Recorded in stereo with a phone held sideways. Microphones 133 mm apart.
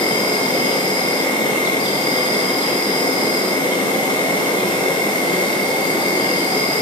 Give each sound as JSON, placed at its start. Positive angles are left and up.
{"t": 0.0, "sound": "an insect", "side_deg": 40, "distance_m": 1.2}